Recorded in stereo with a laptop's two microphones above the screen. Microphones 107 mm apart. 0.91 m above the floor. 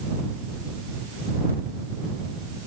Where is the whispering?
I don't hear whispering.